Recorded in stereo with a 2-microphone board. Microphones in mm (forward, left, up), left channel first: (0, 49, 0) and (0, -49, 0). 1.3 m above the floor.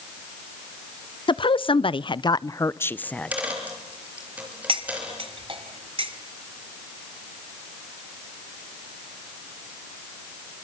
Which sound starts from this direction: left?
A woman speaking, at 1.3 s.